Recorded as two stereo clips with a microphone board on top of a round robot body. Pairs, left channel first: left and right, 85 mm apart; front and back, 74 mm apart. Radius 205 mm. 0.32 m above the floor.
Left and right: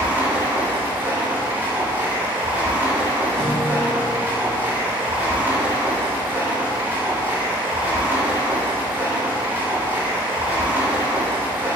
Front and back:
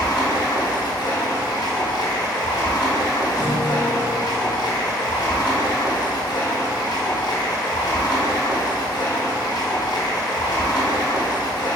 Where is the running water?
25° right, 0.8 m.